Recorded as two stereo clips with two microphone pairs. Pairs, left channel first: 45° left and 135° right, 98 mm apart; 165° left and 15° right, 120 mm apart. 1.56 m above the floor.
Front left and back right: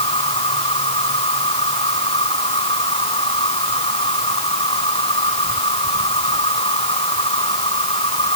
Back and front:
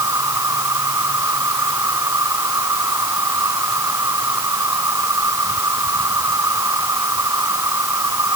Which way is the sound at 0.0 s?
50° left.